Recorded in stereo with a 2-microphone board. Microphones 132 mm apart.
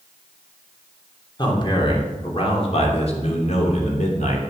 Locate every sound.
1.4 s a man speaking: 35° left (ahead or behind), 3 m; by 4.4 s 65° left (ahead or behind), 3 m